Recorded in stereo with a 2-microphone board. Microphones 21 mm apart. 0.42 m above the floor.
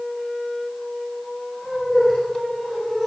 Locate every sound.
1.6 s laughter: 10° left (ahead or behind), 7.5 m